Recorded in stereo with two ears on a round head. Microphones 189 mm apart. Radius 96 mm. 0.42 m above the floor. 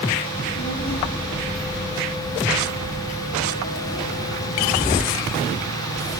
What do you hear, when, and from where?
0.3 s a child speaking: 40° left (ahead or behind), 9 m; by 5.0 s 30° left (ahead or behind), 7 m